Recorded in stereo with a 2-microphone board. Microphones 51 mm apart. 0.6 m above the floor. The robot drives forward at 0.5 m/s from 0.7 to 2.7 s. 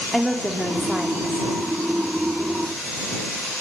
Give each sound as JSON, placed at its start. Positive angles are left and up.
{"t": 0.1, "sound": "a woman speaking", "side_deg": 0, "distance_m": 1.3}